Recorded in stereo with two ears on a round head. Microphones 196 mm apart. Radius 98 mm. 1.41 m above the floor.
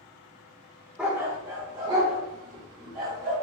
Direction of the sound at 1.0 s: 5° right (ahead or behind).